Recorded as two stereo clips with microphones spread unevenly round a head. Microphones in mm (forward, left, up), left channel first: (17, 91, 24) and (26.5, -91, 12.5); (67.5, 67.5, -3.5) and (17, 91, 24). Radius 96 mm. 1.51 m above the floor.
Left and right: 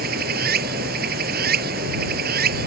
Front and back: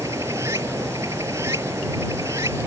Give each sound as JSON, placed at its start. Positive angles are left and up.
{"t": 0.0, "sound": "running water", "azimuth_deg": -130}